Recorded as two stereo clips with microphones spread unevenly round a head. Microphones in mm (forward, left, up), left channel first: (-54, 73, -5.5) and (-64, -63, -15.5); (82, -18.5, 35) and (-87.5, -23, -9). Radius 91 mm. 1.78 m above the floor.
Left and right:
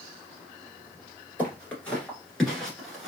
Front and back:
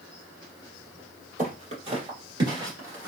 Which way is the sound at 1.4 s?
145° left.